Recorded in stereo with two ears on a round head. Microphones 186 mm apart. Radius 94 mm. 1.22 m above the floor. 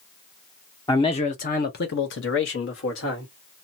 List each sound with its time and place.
0.9 s a man speaking: 15° left (ahead or behind), 0.6 m; by 3.3 s 70° left (ahead or behind), 1.4 m